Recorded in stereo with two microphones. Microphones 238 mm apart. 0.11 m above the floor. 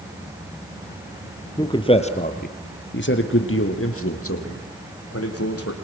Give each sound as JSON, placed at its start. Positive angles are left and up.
{"t": 1.6, "sound": "a man speaking", "side_deg": 15, "distance_m": 2.5}